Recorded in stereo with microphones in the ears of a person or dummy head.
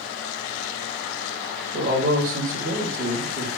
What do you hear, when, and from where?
1.7 s a man speaking: 65° right (ahead or behind), 2 m